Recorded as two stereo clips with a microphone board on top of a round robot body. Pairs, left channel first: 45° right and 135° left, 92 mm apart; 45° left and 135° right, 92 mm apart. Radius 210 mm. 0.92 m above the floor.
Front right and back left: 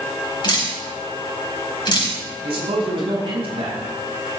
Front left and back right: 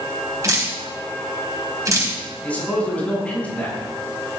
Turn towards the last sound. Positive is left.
turn(degrees=120)